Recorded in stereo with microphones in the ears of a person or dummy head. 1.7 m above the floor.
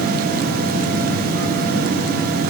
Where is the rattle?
No rattle in this recording.